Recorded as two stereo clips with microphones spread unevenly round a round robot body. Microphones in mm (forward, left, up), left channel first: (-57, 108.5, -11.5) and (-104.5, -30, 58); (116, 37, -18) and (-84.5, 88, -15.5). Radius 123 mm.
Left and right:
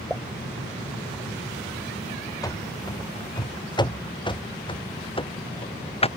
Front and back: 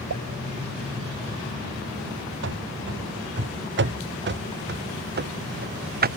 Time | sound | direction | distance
0.1 | a pop | 160° left | ?
2.4 | running footsteps | 140° left | ?